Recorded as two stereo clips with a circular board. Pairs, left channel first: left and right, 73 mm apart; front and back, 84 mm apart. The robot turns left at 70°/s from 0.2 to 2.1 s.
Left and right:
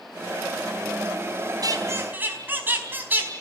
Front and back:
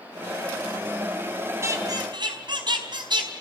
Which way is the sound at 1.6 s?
120° right.